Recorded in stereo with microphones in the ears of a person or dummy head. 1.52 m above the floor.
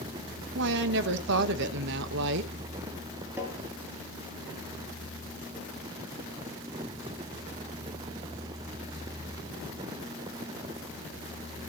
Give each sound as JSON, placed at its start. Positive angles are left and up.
{"t": 0.6, "sound": "a woman speaking", "side_deg": -60, "distance_m": 1.3}
{"t": 3.4, "sound": "tapping", "side_deg": -15, "distance_m": 5.0}